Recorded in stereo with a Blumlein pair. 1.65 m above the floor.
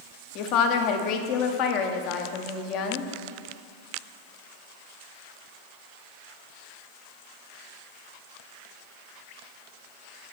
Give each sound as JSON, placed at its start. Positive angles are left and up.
{"t": 0.3, "sound": "a woman speaking", "azimuth_deg": 40, "distance_m": 0.8}